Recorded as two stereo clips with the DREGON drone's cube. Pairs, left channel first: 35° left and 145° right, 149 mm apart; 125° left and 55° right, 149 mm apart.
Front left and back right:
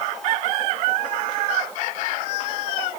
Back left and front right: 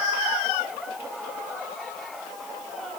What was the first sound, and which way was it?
Only background noise.